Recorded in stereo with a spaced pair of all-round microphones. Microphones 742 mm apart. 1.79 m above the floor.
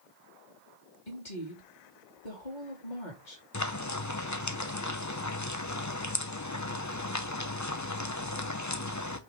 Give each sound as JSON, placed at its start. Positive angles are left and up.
{"t": 1.1, "sound": "a woman speaking", "side_deg": 80, "distance_m": 2.5}
{"t": 3.5, "sound": "frying", "side_deg": 25, "distance_m": 0.8}